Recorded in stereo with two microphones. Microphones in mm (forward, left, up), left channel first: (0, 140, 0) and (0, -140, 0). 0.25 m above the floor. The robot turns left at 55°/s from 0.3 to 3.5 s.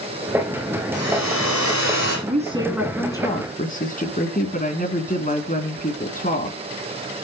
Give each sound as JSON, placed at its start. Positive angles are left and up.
{"t": 0.9, "sound": "a hair dryer", "azimuth_deg": 125, "distance_m": 7.0}
{"t": 2.3, "sound": "a woman speaking", "azimuth_deg": -145, "distance_m": 3.0}